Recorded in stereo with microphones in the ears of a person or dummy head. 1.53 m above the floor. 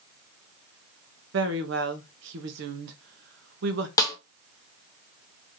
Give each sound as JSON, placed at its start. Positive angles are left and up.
{"t": 1.3, "sound": "a woman speaking", "side_deg": -65, "distance_m": 1.0}
{"t": 4.0, "sound": "a snare drum", "side_deg": 25, "distance_m": 0.6}